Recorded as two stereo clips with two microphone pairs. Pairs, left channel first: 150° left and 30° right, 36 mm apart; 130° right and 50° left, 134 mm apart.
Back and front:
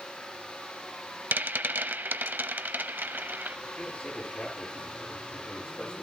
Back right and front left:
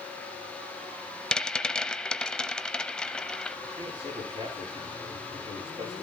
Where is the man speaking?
90° left, 9.5 m.